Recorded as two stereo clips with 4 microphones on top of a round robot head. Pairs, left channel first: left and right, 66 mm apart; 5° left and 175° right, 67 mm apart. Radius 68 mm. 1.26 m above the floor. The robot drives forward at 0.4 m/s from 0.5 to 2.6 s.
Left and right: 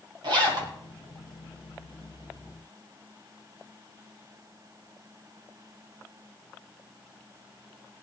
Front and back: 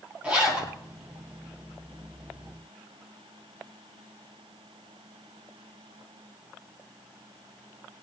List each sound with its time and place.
0.2 s a zipper: 100° right, 2.5 m